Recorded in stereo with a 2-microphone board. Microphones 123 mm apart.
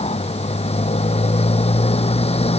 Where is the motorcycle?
55° left (ahead or behind).